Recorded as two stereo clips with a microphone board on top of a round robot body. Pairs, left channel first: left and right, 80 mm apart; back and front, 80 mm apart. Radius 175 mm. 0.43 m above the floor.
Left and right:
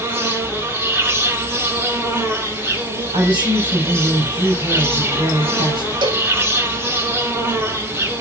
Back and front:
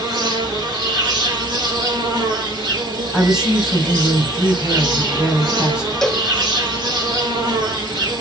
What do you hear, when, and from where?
0.0 s an insect: 25° right, 5 m
3.1 s a woman speaking: 80° right, 3.5 m
6.0 s a cowbell: 95° right, 1.2 m